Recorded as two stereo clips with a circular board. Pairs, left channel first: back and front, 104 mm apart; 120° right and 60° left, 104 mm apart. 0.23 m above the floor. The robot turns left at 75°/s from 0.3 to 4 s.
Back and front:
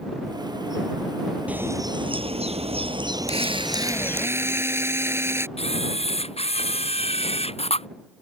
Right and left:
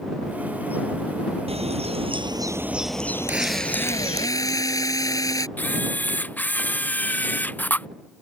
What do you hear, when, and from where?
1.5 s a bird: 75° left; by 4.3 s 110° right
3.3 s a drill: 10° right; by 5.5 s 65° right
5.6 s a camera shutter: 165° left